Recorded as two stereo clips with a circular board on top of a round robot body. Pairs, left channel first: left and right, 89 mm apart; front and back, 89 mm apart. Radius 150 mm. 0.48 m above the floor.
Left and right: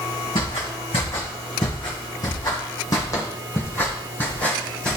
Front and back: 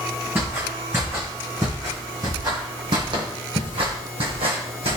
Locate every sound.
0.3 s footsteps: 115° left, 2.5 m; by 5.0 s 170° left, 2 m